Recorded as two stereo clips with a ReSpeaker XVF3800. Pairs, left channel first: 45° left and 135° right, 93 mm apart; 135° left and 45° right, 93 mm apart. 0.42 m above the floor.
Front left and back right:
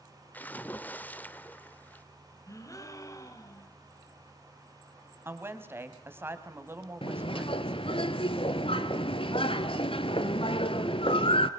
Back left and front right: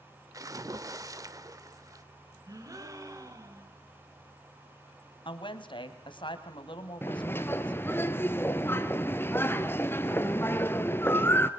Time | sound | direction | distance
0.3 | a splash | 20° right | 1.0 m
2.5 | a gasp | straight ahead | 2 m
5.2 | a woman speaking | 160° left | 2.5 m
7.0 | a bird | 70° left | 1.2 m